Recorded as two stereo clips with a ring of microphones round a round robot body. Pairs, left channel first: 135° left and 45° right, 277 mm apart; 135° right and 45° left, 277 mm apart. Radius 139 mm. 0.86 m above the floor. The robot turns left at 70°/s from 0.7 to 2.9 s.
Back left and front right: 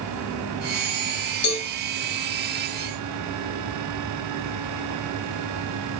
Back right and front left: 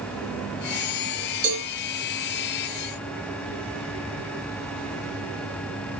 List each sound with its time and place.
1.4 s a cowbell: 85° left, 5 m; by 1.7 s 70° left, 5 m